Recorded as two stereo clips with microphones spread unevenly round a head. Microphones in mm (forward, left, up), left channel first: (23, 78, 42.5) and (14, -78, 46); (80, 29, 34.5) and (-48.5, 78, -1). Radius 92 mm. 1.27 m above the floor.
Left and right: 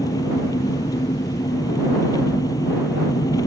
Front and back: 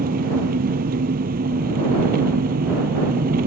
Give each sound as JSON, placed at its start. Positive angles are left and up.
{"t": 0.0, "sound": "an engine running", "azimuth_deg": 155}